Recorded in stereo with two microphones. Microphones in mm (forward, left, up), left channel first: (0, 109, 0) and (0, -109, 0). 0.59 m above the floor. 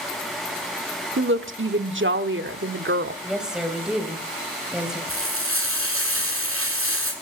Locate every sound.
1.2 s a woman speaking: 60° right (ahead or behind), 1.2 m
3.2 s a woman speaking: 5° right (ahead or behind), 3.5 m
5.1 s frying: 85° right, 7.5 m